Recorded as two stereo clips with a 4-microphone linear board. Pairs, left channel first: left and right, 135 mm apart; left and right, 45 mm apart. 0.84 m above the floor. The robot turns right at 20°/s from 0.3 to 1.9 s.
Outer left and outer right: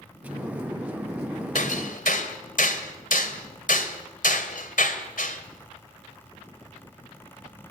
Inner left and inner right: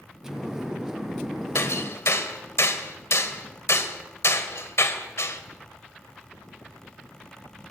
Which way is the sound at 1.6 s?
70° left (ahead or behind).